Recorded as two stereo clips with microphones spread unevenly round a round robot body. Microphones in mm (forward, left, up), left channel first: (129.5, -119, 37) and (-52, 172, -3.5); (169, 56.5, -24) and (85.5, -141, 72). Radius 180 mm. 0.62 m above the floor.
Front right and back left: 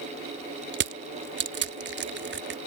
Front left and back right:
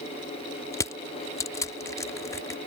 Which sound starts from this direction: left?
Crushing, at 0.7 s.